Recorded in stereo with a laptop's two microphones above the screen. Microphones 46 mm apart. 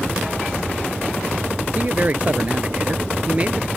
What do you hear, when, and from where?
1.8 s a man speaking: 35° right (ahead or behind); by 3.7 s 25° right (ahead or behind)